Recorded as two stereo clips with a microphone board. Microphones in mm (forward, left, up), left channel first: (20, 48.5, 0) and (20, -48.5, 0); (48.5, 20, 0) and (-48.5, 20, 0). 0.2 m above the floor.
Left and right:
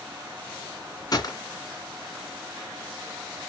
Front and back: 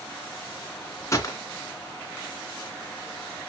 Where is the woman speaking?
No woman speaking in this recording.